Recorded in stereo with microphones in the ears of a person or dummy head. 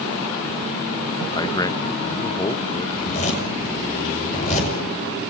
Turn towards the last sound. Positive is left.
turn(degrees=40)  # may be behind; listen again after turning